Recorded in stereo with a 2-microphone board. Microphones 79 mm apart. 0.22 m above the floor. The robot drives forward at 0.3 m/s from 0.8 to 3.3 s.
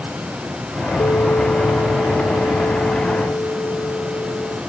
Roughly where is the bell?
Left.